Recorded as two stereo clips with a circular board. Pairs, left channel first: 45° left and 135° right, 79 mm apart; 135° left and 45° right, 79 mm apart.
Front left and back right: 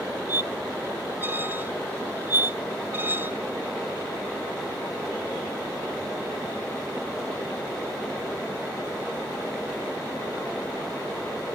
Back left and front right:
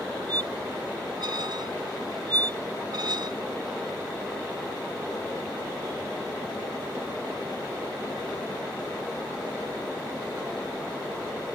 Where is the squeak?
70° right.